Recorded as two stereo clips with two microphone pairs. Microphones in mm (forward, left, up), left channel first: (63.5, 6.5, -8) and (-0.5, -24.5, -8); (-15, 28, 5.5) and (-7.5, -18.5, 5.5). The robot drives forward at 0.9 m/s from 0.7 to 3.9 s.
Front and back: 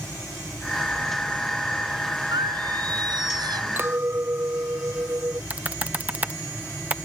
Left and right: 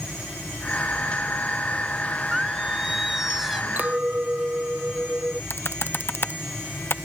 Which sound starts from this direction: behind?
Singing, at 2.3 s.